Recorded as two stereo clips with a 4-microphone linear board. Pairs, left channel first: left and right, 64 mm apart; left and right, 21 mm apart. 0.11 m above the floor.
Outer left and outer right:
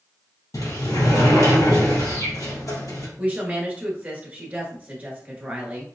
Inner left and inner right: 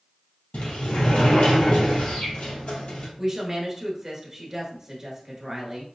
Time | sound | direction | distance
0.5 | a sliding door | 60° left (ahead or behind) | 2 m
3.2 | a woman speaking | 25° right (ahead or behind) | 1.2 m